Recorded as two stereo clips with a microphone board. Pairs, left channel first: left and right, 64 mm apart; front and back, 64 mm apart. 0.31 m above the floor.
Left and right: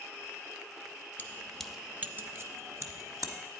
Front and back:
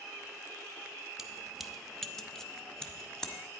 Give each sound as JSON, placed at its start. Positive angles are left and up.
{"t": 1.2, "sound": "keys jangling", "azimuth_deg": 105, "distance_m": 0.6}